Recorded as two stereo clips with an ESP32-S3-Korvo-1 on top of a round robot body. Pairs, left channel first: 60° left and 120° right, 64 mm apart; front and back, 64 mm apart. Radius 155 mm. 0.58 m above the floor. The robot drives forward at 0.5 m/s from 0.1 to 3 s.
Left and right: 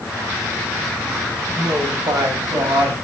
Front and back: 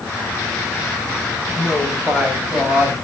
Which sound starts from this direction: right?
A woman speaking, at 1.6 s.